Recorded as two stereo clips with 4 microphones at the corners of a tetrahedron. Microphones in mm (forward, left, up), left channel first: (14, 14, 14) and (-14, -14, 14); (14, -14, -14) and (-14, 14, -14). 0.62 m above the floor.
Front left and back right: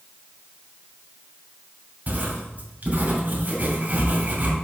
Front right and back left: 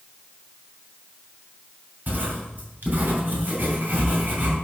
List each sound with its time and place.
2.1 s writing: 175° left, 2.5 m